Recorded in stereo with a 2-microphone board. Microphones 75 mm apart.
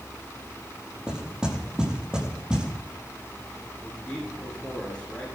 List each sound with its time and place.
1.1 s knocking: 10° right (ahead or behind), 7 m
3.8 s a man speaking: 15° left (ahead or behind), 9.5 m